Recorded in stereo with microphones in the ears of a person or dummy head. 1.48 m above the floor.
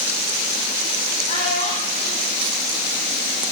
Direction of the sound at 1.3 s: 40° left (ahead or behind).